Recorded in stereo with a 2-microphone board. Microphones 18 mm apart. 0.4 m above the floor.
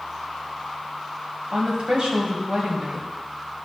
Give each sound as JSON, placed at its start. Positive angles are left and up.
{"t": 1.5, "sound": "a woman speaking", "side_deg": -65, "distance_m": 2.0}